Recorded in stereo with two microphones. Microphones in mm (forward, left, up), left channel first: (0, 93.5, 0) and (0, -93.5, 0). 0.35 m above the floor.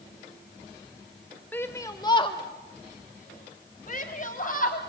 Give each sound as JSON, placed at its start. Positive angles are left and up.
{"t": 1.5, "sound": "a shout", "side_deg": 10, "distance_m": 1.2}